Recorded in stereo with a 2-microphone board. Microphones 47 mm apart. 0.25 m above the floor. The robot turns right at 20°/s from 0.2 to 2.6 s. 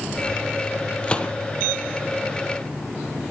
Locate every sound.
1.0 s a gunshot: 25° left (ahead or behind), 2 m; by 1.3 s 15° left (ahead or behind), 2 m